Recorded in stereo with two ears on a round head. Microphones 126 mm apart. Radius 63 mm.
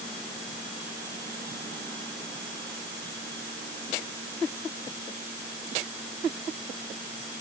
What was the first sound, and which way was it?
Only background noise.